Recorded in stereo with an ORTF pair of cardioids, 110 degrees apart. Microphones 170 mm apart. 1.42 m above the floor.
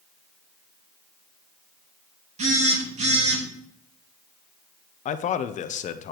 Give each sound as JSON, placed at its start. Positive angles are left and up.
{"t": 2.4, "sound": "a phone buzzing", "azimuth_deg": -45, "distance_m": 2.0}
{"t": 5.0, "sound": "a man speaking", "azimuth_deg": 45, "distance_m": 0.6}